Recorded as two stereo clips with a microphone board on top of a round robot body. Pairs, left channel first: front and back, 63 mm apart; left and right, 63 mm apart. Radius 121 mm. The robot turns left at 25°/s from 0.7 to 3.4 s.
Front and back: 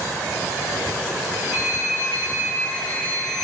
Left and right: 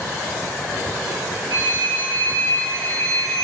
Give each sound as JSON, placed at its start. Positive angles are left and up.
{"t": 1.5, "sound": "a phone ringing", "azimuth_deg": -30, "distance_m": 2.5}